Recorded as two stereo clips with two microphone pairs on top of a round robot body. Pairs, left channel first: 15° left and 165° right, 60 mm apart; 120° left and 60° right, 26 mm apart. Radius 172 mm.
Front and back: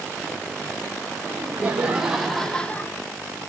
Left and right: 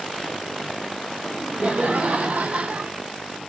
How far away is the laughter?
About 2 m.